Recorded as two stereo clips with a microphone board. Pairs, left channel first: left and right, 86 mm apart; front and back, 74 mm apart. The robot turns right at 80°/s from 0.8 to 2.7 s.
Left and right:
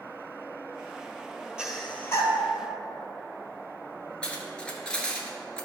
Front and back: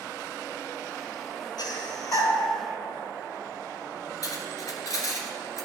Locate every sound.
1.6 s breathing: 10° right, 1.4 m; by 2.3 s 50° left, 1.4 m
4.2 s cutlery clinking: 15° left, 1.3 m